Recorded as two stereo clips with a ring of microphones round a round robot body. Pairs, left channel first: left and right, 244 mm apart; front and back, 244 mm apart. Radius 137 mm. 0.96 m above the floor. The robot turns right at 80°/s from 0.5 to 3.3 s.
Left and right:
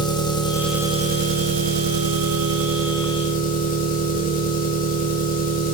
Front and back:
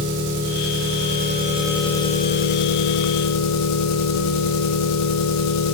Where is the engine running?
165° left, 1.3 m; by 5.7 s 30° left, 1.3 m.